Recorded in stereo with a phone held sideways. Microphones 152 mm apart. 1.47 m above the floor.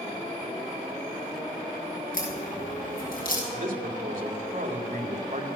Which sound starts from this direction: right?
A man speaking, at 3.5 s.